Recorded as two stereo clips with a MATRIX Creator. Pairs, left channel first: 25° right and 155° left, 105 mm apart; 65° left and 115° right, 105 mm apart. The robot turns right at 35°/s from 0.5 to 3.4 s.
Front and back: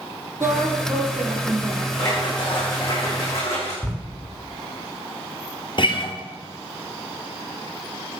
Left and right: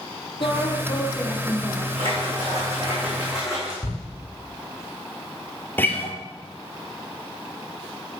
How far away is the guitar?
About 1.4 m.